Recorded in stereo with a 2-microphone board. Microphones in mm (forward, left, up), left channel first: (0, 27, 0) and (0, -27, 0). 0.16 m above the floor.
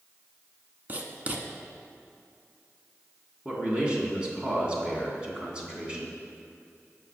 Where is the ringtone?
No ringtone in this recording.